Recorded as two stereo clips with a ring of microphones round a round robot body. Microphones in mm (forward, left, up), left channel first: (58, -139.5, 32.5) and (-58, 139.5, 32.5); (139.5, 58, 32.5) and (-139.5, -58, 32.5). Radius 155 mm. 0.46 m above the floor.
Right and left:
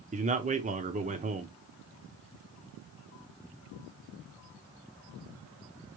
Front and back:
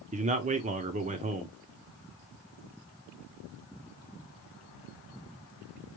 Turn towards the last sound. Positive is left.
turn(degrees=155)